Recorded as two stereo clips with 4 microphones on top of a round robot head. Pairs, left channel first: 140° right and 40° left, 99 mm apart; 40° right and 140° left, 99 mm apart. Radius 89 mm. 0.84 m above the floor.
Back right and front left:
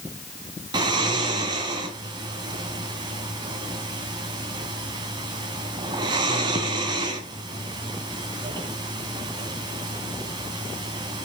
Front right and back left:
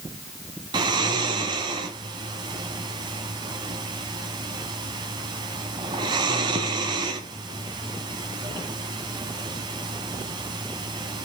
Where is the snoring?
90° left, 2.0 m.